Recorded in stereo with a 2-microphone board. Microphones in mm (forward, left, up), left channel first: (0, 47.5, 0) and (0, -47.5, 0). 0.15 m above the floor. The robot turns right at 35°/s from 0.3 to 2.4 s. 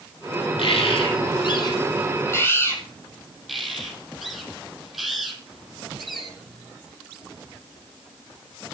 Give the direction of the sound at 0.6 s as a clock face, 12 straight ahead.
9 o'clock.